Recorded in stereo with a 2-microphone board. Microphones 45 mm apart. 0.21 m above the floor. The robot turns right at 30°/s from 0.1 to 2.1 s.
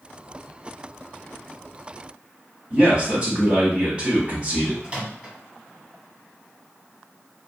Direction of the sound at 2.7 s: 30° right (ahead or behind).